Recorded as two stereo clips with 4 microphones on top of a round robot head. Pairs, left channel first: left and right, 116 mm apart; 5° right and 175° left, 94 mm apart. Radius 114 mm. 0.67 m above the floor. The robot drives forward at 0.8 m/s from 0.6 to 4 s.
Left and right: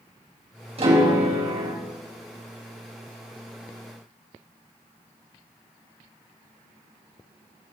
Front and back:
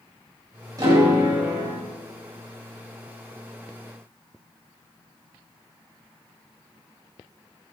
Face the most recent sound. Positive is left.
turn(degrees=-140)